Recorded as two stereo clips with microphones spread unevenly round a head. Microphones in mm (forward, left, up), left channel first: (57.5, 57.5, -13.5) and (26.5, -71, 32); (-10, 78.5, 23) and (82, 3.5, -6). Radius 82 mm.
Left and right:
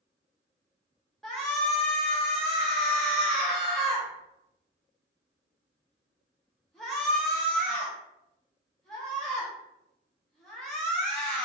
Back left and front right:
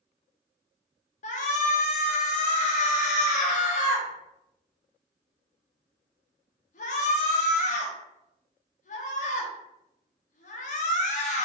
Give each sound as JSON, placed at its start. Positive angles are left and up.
{"t": 1.2, "sound": "a shout", "azimuth_deg": 170, "distance_m": 0.8}